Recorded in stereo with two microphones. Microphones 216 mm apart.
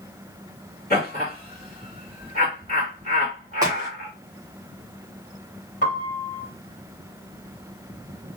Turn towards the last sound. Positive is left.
turn(degrees=40)  # may be behind; listen again after turning